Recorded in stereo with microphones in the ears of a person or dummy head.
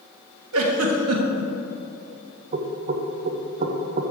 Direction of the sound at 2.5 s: 45° right (ahead or behind).